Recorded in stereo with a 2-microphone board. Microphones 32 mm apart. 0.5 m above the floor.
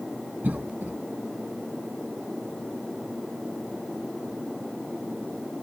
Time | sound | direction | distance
0.4 | a cough | 70° right (ahead or behind) | 3 m